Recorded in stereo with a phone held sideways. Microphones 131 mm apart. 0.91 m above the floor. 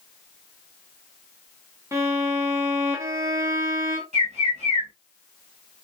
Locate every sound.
1.9 s a violin: 20° right (ahead or behind), 0.7 m
4.1 s a bird: 60° right (ahead or behind), 1.6 m